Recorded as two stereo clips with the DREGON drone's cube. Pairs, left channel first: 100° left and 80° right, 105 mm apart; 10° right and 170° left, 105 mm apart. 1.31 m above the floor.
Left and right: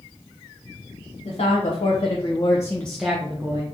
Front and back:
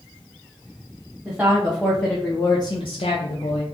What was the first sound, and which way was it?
A woman speaking, 95° left.